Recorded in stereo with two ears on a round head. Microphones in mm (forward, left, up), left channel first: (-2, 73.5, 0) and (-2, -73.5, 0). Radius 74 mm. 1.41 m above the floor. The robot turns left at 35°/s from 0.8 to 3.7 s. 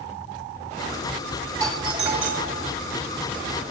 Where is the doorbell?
25° right, 1.8 m; by 2.6 s 60° right, 1.8 m.